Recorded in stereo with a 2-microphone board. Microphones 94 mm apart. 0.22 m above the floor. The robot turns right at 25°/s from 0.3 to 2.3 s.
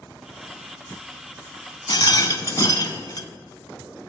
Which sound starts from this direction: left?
A rattle, at 1.9 s.